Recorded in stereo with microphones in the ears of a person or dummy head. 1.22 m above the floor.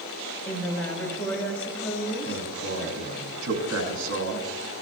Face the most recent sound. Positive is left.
turn(degrees=-75)  # may be behind; listen again after turning